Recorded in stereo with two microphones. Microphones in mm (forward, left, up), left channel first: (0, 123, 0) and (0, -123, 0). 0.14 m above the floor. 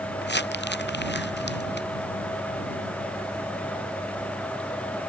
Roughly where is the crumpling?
Left.